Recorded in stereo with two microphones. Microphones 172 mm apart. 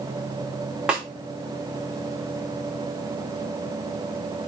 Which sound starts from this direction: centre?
A snare drum, at 0.9 s.